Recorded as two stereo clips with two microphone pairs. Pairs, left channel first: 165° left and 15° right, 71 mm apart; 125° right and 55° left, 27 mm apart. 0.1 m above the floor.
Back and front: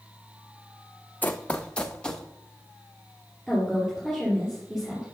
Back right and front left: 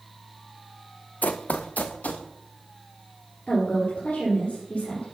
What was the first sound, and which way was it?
Running footsteps, 130° right.